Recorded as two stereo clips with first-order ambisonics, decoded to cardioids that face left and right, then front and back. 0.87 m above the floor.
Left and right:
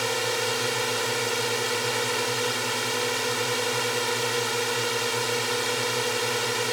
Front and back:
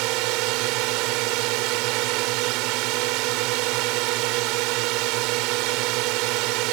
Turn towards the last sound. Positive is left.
turn(degrees=180)